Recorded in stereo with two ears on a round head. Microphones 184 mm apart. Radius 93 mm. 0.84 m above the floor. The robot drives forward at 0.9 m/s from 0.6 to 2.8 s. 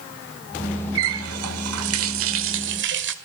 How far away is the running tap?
About 1.9 m.